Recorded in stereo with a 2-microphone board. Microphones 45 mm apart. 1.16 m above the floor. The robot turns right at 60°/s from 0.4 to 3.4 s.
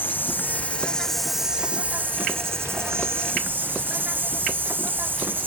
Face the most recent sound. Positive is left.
turn(degrees=-50)